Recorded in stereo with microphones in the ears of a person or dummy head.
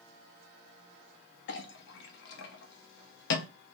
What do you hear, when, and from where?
1.5 s a clink: 60° left (ahead or behind), 0.5 m